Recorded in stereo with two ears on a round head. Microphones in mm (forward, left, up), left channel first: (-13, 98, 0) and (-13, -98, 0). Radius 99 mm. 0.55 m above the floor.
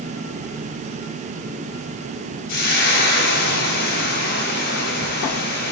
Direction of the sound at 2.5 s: 55° left (ahead or behind).